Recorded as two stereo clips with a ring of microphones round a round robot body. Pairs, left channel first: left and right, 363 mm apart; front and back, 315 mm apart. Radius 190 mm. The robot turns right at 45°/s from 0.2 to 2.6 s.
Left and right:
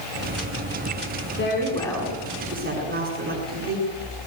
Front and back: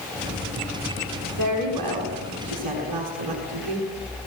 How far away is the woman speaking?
About 8 m.